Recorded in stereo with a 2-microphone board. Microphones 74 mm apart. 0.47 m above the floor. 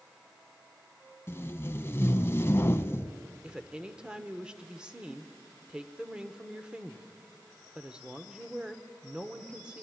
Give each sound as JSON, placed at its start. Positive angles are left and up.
{"t": 1.3, "sound": "tape being pulled", "side_deg": 30, "distance_m": 0.6}
{"t": 3.4, "sound": "a woman speaking", "side_deg": -10, "distance_m": 1.1}